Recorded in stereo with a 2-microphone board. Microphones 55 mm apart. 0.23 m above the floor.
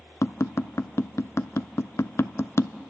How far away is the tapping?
About 0.6 m.